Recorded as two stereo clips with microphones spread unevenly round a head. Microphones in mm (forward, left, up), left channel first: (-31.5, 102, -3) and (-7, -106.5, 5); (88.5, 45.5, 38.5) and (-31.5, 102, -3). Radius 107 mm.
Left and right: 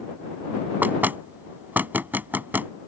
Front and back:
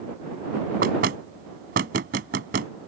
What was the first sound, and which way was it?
Knocking, 165° right.